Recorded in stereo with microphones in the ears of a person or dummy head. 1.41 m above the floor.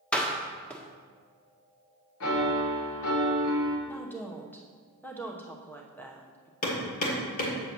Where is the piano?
75° left (ahead or behind), 1.4 m.